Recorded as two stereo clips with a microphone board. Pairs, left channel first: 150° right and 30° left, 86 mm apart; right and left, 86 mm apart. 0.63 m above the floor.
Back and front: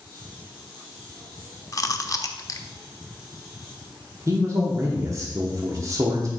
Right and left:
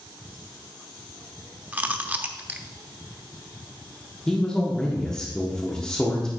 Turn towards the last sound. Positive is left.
turn(degrees=-10)